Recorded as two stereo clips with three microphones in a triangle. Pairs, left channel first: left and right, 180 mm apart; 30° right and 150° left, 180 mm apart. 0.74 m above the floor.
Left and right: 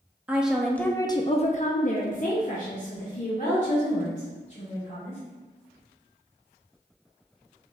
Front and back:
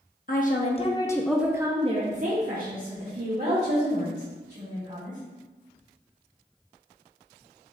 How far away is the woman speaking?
About 0.9 m.